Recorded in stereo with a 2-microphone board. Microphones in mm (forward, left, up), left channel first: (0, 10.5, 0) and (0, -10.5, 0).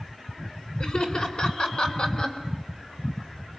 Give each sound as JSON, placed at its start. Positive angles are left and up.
{"t": 0.8, "sound": "laughter", "side_deg": 40, "distance_m": 2.5}